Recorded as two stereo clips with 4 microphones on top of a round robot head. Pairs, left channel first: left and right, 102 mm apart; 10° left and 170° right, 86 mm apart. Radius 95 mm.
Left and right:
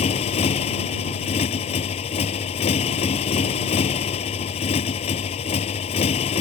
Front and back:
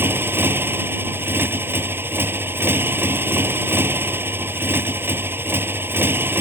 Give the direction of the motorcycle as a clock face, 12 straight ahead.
8 o'clock.